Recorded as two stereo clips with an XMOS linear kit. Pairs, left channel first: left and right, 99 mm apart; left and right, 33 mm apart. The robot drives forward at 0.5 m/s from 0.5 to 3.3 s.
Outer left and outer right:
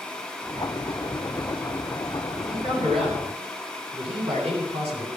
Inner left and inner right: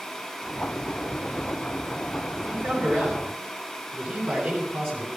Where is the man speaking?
90° right, 9 m; by 5.1 s 85° right, 9 m.